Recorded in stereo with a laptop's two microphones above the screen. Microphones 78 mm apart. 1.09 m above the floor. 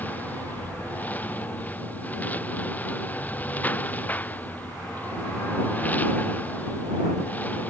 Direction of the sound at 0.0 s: 20° left (ahead or behind).